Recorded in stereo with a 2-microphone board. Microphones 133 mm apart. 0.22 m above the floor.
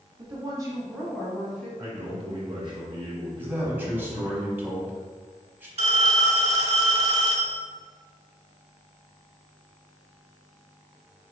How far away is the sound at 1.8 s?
About 1.5 m.